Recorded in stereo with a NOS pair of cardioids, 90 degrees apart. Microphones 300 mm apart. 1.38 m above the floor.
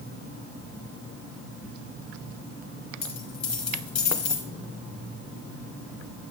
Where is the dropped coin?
60° left, 2.5 m.